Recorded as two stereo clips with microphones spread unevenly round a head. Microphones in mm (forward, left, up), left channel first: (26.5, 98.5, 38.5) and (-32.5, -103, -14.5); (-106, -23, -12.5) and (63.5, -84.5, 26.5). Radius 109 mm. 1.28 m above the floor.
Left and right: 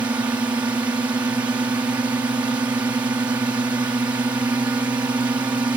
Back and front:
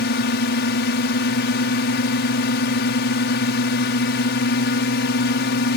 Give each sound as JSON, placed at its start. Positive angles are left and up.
{"t": 0.0, "sound": "a drone", "azimuth_deg": 175}